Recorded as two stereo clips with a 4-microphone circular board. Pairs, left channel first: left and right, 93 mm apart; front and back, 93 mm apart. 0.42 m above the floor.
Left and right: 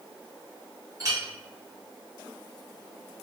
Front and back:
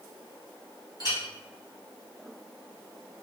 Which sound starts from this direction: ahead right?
A clink, at 1.0 s.